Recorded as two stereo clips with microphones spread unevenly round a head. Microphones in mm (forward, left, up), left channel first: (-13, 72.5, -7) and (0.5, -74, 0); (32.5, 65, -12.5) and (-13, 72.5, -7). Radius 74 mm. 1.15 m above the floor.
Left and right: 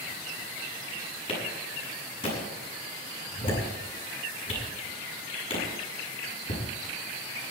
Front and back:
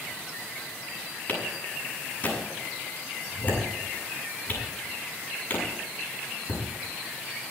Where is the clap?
40° left, 7 m.